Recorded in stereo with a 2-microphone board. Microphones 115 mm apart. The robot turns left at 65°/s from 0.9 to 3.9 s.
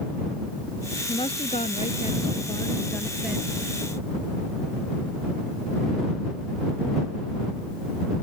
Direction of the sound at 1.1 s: 135° left.